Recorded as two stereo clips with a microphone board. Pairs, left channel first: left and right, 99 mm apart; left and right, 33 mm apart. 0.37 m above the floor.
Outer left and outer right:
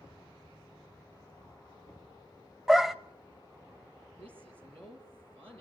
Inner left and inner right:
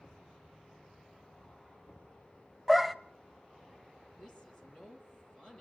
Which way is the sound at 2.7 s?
Centre (ahead or behind).